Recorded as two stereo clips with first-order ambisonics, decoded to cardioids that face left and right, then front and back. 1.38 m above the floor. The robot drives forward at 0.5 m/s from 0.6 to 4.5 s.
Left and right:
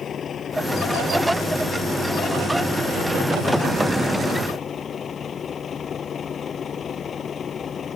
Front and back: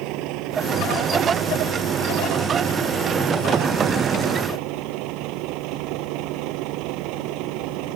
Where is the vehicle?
155° left.